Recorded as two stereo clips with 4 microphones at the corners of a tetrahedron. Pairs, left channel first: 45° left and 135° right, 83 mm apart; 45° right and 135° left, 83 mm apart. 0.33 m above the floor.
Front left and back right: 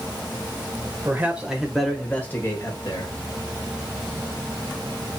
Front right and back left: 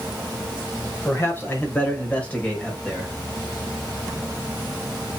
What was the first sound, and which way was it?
A man speaking, 85° right.